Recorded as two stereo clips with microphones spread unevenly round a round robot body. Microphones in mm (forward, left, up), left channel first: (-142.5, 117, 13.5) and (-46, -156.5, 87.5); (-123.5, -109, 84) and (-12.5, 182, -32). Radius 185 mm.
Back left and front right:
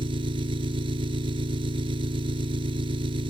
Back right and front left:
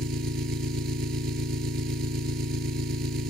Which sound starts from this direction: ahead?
An engine running, at 0.0 s.